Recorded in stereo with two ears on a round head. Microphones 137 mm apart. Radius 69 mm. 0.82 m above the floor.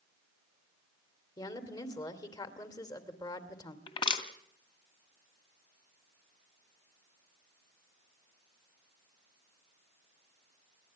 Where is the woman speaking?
25° left (ahead or behind), 2.5 m.